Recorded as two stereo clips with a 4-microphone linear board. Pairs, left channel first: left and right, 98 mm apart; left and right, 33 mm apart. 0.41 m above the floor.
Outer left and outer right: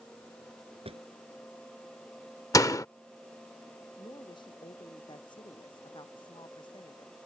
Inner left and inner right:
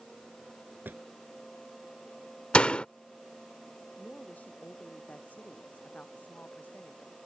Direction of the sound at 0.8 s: 85° right.